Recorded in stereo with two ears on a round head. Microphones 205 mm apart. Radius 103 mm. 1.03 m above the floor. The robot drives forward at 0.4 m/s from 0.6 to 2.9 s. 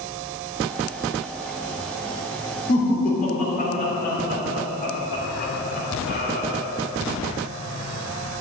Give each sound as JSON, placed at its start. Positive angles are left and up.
{"t": 2.7, "sound": "laughter", "side_deg": 35, "distance_m": 3.5}